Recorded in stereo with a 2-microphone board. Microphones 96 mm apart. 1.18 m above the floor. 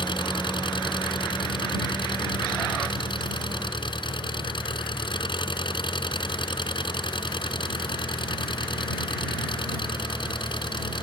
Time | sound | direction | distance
0.0 | an engine running | 60° left (ahead or behind) | ?